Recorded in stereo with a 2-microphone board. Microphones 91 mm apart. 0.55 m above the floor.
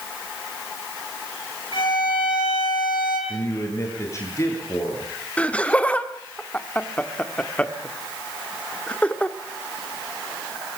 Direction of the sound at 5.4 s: 15° left (ahead or behind).